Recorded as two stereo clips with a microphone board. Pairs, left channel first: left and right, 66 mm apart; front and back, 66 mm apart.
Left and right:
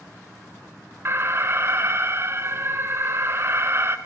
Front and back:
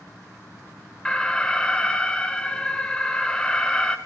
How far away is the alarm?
About 1.9 m.